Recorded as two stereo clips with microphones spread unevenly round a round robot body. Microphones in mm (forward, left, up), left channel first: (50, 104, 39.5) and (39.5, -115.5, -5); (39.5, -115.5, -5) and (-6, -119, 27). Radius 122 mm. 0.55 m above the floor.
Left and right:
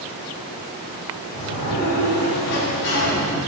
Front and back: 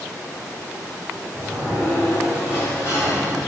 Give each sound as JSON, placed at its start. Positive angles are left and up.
{"t": 1.3, "sound": "a sliding door", "azimuth_deg": 90, "distance_m": 3.0}